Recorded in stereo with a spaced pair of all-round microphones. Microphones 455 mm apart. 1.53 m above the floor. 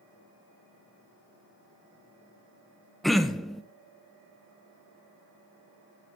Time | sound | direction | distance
3.0 | throat clearing | centre (ahead or behind) | 0.8 m